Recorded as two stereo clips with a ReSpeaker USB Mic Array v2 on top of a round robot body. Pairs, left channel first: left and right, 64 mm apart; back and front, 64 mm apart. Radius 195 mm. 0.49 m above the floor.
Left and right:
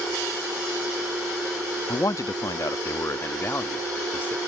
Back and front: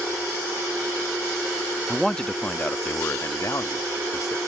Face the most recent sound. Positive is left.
turn(degrees=155)